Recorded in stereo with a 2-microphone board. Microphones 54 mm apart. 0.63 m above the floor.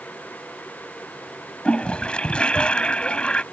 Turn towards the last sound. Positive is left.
turn(degrees=20)  # may be behind; listen again after turning